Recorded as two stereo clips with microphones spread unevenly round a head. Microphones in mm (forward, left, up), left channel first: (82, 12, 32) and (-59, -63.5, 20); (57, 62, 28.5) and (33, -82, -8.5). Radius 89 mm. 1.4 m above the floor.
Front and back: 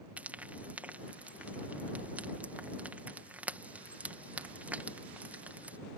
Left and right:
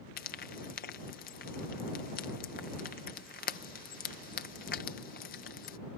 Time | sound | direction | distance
0.2 | frying | 125° left | ?